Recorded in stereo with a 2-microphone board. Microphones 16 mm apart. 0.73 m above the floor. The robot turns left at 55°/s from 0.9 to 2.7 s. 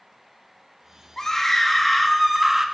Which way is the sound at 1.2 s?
35° left.